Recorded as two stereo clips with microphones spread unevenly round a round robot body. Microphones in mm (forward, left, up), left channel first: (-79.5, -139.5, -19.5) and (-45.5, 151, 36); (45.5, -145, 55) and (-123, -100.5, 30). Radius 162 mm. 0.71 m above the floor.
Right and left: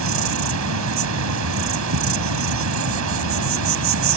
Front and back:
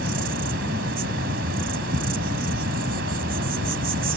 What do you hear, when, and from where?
0.0 s an insect: 115° left